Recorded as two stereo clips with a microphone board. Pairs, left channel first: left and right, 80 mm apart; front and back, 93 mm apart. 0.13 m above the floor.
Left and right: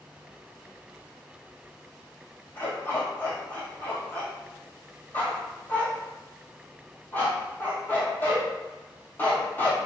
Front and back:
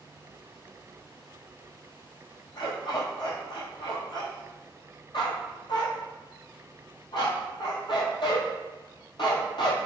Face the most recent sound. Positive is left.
turn(degrees=25)